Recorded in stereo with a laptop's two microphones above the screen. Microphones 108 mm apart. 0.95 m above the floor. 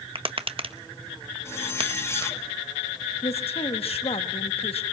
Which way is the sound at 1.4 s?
25° left (ahead or behind).